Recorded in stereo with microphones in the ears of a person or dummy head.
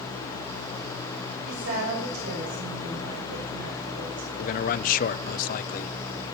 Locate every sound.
1.5 s a woman speaking: 70° right (ahead or behind), 6 m; by 4.3 s 80° right, 5.5 m
4.4 s a man speaking: 40° left (ahead or behind), 0.6 m